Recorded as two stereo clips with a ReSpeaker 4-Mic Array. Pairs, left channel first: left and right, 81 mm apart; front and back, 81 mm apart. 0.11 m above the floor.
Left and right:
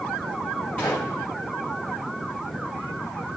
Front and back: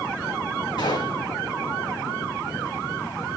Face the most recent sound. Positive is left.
turn(degrees=15)